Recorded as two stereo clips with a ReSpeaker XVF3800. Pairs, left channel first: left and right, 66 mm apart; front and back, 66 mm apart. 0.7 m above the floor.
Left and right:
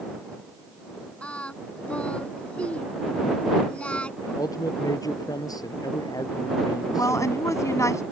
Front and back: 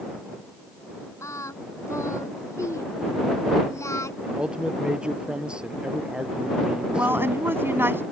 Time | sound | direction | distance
1.2 | singing | 20° left | ?
4.2 | a man speaking | 105° left | ?
7.0 | a woman speaking | 125° left | ?